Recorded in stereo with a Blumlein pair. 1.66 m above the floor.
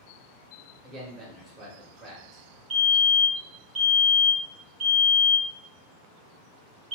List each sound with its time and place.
0.8 s a man speaking: 20° right, 1.2 m
2.7 s a fire alarm: 20° right, 1.3 m